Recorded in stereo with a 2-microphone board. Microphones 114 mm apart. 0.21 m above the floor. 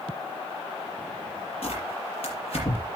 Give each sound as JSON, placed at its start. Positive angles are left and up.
{"t": 1.6, "sound": "tearing paper", "side_deg": 60, "distance_m": 5.5}